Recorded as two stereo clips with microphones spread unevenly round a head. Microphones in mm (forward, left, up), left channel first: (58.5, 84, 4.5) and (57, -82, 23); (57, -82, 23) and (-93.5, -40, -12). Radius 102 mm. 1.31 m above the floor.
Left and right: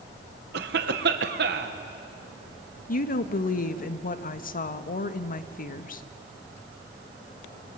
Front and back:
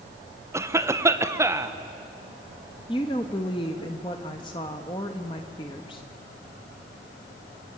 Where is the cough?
125° right, 1.3 m.